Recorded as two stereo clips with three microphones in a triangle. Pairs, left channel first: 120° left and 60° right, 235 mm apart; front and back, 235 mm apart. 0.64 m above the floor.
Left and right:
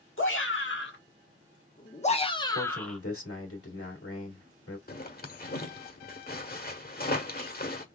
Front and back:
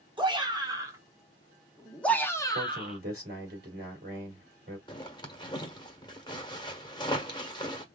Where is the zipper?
70° left, 1.0 m.